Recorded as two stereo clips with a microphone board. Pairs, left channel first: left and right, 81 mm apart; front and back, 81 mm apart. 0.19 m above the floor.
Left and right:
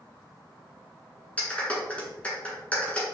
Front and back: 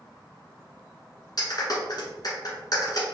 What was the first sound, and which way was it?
A clap, 20° left.